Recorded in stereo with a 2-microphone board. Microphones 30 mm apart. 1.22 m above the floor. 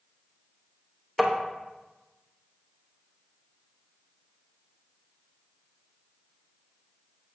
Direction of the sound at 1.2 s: 10° right (ahead or behind).